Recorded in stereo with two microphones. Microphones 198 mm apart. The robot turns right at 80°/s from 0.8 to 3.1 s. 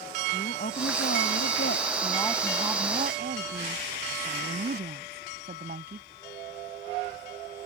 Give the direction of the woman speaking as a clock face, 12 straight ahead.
10 o'clock.